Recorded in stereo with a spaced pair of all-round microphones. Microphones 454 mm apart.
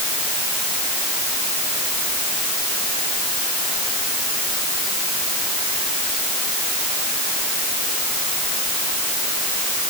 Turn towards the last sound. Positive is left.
No sound to turn to.